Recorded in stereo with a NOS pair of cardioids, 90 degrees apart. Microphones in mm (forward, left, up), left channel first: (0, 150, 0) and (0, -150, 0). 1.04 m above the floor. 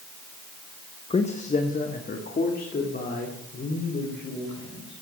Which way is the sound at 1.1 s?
20° left.